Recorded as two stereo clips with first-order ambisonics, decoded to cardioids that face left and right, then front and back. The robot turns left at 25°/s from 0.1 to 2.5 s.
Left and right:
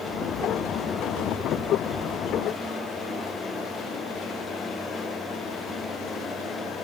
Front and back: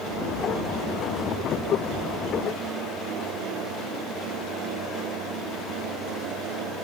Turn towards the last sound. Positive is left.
No sound to turn to.